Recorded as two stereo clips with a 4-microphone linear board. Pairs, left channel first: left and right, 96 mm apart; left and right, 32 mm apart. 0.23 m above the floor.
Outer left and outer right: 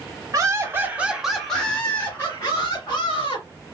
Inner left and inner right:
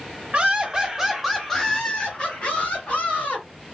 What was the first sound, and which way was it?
Laughter, 35° right (ahead or behind).